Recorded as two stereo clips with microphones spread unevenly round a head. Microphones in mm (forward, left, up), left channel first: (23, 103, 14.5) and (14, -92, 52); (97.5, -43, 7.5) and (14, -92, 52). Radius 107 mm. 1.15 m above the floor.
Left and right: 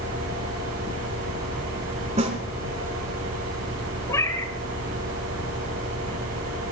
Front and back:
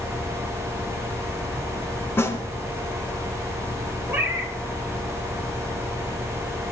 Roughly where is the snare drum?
Ahead right.